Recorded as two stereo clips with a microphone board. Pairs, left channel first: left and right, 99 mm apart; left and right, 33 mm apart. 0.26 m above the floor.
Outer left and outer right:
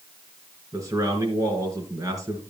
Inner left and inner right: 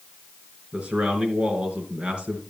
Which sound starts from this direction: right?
A man speaking, at 0.7 s.